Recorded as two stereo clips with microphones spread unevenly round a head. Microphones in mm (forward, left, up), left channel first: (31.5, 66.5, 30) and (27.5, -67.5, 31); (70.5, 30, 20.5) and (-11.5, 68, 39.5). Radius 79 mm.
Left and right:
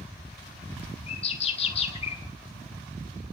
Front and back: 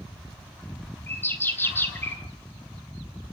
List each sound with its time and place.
1.1 s a bird: 45° left, 1.8 m